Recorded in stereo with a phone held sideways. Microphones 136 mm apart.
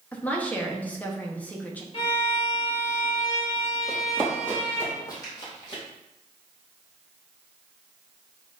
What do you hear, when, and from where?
0.1 s a woman speaking: 10° left (ahead or behind), 1.0 m
1.9 s a violin: 40° left (ahead or behind), 1.9 m
3.9 s running footsteps: centre (ahead or behind), 2.0 m; by 5.8 s 40° left (ahead or behind), 3 m